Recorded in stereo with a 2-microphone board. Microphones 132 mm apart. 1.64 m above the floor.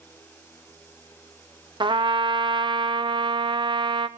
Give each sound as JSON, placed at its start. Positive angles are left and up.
{"t": 1.8, "sound": "a trumpet", "side_deg": -35, "distance_m": 0.8}